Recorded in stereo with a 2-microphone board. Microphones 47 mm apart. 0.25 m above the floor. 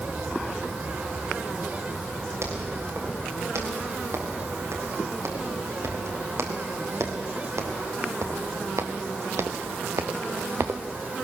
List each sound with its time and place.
2.4 s footsteps: 75° right (ahead or behind), 7 m; by 10.8 s 60° right (ahead or behind), 1.2 m